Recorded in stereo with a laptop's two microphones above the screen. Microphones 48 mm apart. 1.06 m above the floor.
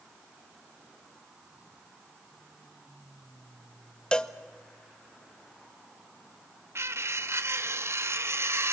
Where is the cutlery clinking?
60° right (ahead or behind), 0.7 m.